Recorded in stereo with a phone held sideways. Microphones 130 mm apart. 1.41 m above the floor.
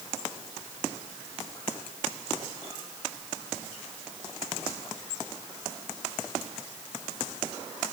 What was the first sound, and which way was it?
Only background noise.